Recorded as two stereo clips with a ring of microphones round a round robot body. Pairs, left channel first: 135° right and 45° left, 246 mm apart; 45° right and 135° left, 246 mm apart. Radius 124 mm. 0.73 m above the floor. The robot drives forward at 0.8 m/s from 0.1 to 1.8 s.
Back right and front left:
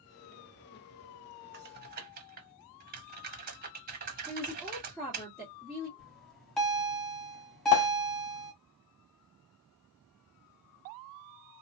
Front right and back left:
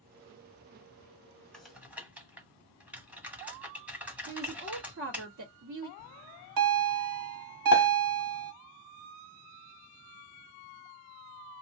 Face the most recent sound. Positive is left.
turn(degrees=-90)